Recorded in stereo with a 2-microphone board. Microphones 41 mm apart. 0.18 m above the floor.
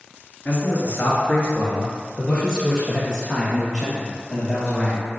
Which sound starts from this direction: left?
A man speaking, at 0.5 s.